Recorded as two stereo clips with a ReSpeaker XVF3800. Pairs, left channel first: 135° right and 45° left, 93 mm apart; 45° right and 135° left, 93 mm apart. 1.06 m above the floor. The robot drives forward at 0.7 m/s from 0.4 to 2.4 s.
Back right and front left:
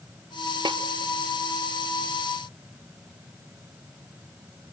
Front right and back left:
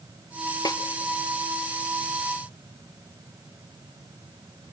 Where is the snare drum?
5° left, 0.6 m.